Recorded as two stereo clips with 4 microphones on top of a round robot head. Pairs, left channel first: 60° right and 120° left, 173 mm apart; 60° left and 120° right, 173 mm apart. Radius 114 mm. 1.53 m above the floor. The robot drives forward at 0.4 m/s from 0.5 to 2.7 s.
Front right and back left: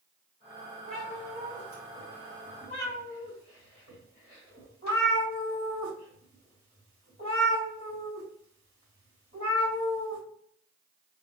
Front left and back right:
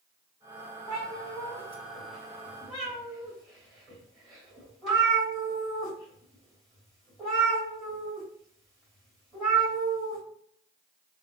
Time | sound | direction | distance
0.9 | a cat meowing | 115° left | 1.3 m